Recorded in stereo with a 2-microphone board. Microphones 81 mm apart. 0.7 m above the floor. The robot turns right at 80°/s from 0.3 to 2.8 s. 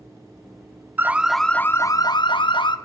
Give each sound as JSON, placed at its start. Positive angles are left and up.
{"t": 1.0, "sound": "an alarm", "azimuth_deg": -30, "distance_m": 0.8}